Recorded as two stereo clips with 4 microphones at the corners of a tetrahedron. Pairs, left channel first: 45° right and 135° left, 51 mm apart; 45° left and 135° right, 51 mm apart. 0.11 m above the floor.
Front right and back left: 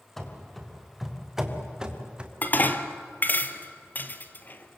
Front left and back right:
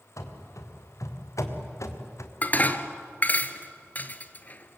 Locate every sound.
0.2 s running footsteps: 40° left, 4 m; by 2.3 s 65° left, 3 m
2.4 s dishes clattering: straight ahead, 1.3 m